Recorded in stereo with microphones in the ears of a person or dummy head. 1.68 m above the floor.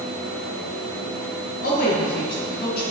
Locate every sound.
1.6 s a woman speaking: 55° left (ahead or behind), 1.8 m